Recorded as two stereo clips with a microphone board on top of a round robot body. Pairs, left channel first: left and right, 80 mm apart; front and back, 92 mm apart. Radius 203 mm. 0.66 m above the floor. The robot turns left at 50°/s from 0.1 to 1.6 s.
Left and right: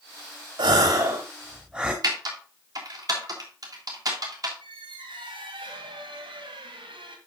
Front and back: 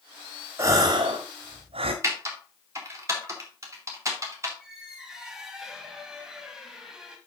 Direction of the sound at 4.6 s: 95° right.